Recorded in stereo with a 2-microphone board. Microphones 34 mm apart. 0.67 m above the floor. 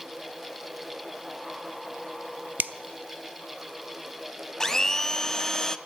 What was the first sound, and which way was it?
A finger snap, 60° right (ahead or behind).